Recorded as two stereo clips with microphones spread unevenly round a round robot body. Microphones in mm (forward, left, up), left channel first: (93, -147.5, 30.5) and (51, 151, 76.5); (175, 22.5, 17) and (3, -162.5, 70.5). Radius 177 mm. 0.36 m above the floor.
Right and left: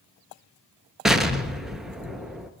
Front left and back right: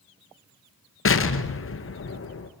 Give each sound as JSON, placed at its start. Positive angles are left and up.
{"t": 1.1, "sound": "an explosion", "azimuth_deg": 10, "distance_m": 2.0}